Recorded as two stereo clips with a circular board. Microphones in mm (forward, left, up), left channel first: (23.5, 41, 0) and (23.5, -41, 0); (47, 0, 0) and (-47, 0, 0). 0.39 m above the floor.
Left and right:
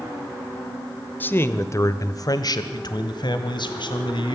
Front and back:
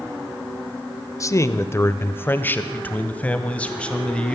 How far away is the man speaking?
About 1.0 m.